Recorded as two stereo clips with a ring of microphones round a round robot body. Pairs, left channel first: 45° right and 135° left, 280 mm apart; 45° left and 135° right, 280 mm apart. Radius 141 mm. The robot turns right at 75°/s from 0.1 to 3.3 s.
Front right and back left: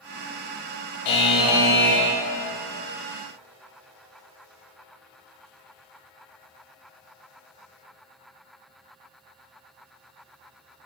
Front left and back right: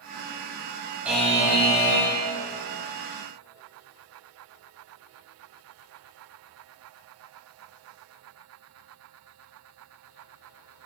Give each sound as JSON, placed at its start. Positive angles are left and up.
{"t": 1.1, "sound": "a buzzer", "azimuth_deg": -50, "distance_m": 0.6}